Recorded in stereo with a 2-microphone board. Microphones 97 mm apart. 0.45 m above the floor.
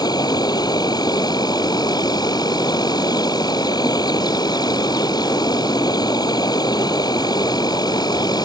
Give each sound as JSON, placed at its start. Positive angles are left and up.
{"t": 0.0, "sound": "an insect", "side_deg": 45}